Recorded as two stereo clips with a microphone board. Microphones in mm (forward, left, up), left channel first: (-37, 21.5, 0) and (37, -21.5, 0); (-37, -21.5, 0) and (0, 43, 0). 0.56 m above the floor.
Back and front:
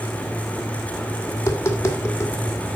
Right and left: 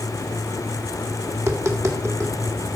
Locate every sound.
1.3 s tapping: 100° left, 1.6 m